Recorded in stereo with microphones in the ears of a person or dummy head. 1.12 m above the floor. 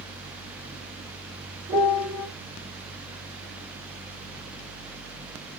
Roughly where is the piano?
Centre.